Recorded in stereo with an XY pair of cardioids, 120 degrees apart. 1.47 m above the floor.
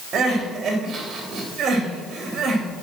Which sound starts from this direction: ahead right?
Crying, at 0.1 s.